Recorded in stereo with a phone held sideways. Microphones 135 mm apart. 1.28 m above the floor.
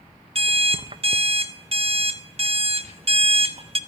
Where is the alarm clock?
45° right (ahead or behind), 0.6 m.